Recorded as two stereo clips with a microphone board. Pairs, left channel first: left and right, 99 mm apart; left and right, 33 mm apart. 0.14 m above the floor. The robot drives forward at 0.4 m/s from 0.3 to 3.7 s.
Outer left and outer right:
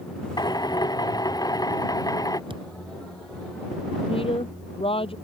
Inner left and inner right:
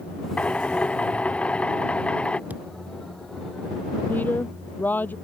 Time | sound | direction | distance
0.4 | a drill | 45° left (ahead or behind) | ?
2.5 | a thud | 60° right (ahead or behind) | ?
4.1 | a woman speaking | 70° left (ahead or behind) | ?